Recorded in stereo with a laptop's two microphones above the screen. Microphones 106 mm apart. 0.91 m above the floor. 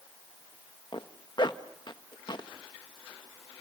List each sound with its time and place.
0.9 s a zipper: 45° left (ahead or behind), 1.2 m